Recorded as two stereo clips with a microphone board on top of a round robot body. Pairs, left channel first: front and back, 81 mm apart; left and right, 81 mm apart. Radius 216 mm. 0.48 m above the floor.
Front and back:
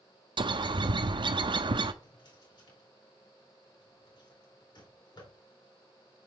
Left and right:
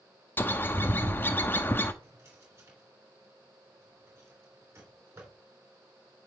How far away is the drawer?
About 3 m.